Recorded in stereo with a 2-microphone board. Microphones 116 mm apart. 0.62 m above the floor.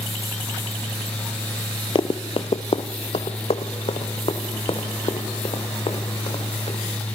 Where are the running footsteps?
45° left (ahead or behind), 0.8 m; by 6.8 s 55° left (ahead or behind), 4.5 m.